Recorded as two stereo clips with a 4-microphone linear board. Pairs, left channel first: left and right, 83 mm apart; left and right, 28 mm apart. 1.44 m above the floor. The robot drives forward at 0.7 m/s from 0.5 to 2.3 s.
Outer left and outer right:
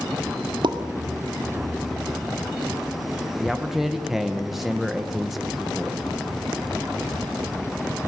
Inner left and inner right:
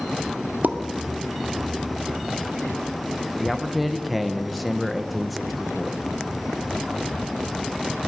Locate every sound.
0.6 s a pop: 70° right (ahead or behind), 1.9 m
3.4 s a man speaking: centre (ahead or behind), 1.5 m